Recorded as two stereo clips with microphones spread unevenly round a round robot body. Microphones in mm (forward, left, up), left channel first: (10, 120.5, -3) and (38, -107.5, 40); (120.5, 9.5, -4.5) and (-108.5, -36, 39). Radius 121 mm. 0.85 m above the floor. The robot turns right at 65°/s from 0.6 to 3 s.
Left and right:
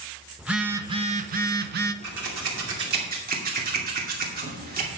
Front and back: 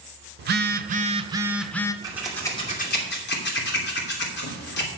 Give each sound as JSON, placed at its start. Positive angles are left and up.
{"t": 0.4, "sound": "a phone buzzing", "azimuth_deg": -155, "distance_m": 0.6}
{"t": 2.0, "sound": "scissors", "azimuth_deg": -90, "distance_m": 2.5}